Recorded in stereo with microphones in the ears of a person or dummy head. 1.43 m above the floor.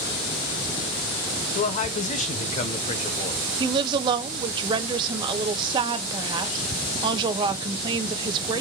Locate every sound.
1.6 s a man speaking: 40° left (ahead or behind), 0.7 m
3.6 s a woman speaking: 30° right (ahead or behind), 0.6 m